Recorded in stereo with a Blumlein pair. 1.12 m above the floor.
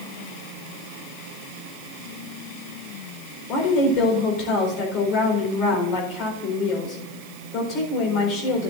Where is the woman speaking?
40° left, 4 m.